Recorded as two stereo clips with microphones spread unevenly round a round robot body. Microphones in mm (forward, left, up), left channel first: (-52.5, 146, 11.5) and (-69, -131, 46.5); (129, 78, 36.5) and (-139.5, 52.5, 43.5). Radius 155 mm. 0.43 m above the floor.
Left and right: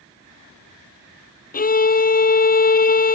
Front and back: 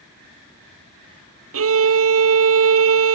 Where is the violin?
150° left.